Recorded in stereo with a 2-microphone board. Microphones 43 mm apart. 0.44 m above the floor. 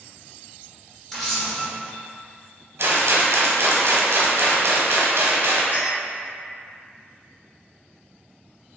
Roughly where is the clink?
Left.